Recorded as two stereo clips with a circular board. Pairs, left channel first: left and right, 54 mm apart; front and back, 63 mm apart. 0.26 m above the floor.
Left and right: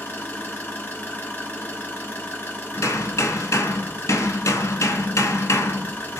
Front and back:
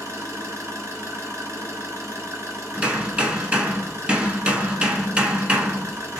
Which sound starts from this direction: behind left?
An engine running, at 0.0 s.